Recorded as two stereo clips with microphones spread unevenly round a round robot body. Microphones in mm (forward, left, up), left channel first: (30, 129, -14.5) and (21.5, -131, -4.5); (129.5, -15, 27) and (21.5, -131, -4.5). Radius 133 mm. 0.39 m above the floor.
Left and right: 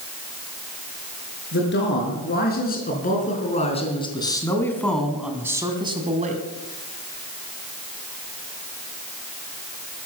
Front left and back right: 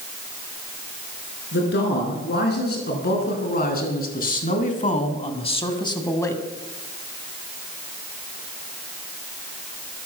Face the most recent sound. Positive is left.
turn(degrees=-30)